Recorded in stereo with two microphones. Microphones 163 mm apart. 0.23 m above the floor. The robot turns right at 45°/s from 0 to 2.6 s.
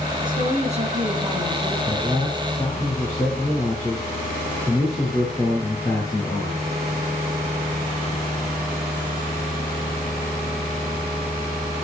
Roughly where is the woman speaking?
Right.